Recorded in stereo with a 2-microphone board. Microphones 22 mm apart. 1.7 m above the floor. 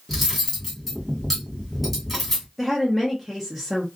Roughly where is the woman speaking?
Centre.